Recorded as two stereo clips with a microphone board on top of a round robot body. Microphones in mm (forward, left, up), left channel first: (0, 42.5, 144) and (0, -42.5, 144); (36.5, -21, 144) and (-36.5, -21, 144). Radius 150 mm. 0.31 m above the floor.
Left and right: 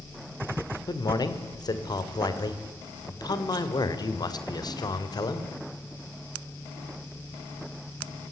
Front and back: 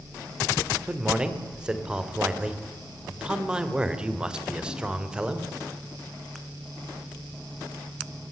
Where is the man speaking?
105° left, 2.5 m.